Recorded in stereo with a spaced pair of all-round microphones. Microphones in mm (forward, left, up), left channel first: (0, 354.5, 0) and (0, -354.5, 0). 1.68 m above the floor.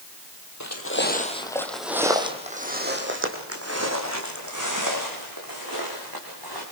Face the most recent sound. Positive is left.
turn(degrees=-30)  # may be behind; listen again after turning